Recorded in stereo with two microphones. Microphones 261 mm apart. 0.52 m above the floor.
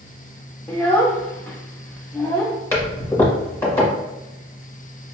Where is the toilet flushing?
10° left (ahead or behind), 1.6 m.